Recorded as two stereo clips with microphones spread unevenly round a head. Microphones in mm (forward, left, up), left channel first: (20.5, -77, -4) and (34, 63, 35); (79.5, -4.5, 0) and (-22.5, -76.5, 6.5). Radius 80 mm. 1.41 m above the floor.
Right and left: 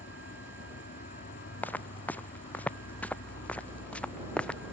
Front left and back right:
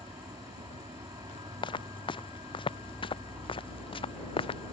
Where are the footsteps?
15° right; by 4.7 s 10° right.